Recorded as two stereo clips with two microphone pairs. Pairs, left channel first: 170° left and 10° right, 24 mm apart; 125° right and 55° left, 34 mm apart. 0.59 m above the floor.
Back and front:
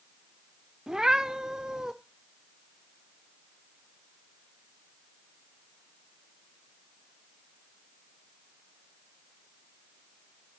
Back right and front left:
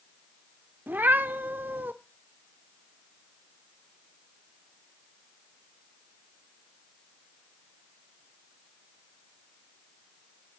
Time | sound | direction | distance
0.9 | a cat meowing | 50° left | 0.5 m